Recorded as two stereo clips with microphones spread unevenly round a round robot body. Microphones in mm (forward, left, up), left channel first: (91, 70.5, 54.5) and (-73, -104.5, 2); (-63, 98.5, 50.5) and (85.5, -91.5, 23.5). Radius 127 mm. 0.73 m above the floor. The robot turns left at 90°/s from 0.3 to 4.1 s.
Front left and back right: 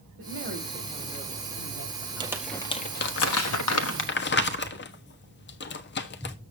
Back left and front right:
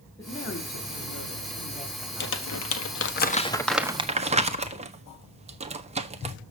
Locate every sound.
0.2 s a woman speaking: 160° right, 2.5 m; by 2.7 s 15° right, 2.5 m
2.2 s crumpling: 170° left, 1.4 m; by 6.3 s straight ahead, 1.4 m